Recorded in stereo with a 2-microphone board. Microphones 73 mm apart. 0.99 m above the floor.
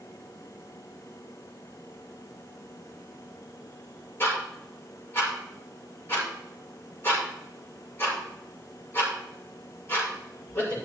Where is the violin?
I don't hear a violin.